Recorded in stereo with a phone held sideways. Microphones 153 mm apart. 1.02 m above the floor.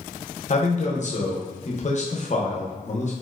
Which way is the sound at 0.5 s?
50° left (ahead or behind).